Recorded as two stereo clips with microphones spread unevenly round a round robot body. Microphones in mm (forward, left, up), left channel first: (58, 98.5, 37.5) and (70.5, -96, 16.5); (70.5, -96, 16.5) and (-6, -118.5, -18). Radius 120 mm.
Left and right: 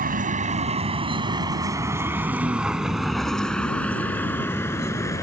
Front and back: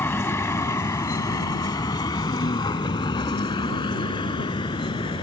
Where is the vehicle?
40° right; by 5.2 s 20° left.